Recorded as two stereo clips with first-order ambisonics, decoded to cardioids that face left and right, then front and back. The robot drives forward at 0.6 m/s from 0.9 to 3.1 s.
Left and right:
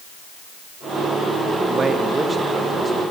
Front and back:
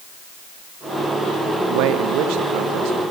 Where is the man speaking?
160° right, 1.1 m; by 3.0 s 170° right, 1.8 m.